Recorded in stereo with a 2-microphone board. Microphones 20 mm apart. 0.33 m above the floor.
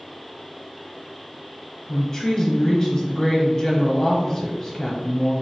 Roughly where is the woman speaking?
Centre.